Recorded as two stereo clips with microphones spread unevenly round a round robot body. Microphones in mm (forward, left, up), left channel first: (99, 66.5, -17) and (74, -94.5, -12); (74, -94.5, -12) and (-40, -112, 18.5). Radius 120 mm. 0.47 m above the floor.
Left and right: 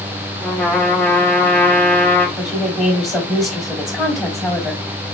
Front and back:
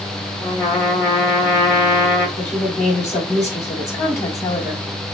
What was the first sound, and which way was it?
A trumpet, 5° left.